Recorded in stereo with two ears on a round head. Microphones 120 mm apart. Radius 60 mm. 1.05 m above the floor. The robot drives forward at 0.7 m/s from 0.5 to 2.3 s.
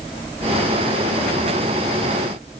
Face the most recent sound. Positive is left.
No sound to turn to.